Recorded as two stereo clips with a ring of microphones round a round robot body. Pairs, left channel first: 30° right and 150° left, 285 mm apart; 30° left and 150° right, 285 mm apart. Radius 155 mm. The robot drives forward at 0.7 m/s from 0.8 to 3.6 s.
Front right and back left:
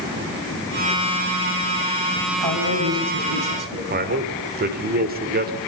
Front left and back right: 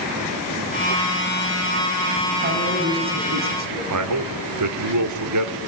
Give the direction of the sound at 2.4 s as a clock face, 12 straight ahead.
7 o'clock.